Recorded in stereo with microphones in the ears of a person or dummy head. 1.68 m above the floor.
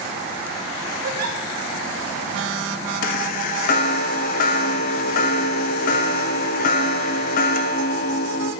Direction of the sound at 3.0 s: 45° left (ahead or behind).